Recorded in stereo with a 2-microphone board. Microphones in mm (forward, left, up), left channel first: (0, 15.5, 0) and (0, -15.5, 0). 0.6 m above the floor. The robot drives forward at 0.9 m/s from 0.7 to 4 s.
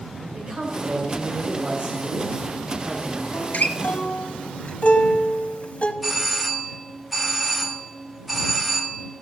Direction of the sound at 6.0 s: 5° right (ahead or behind).